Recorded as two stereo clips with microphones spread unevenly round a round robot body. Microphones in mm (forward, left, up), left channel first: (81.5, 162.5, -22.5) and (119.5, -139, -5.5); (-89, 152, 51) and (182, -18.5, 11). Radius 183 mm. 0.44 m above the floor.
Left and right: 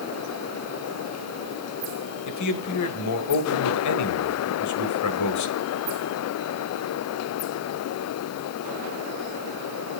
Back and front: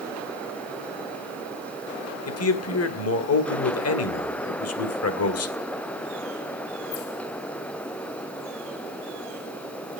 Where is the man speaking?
105° left, 2 m.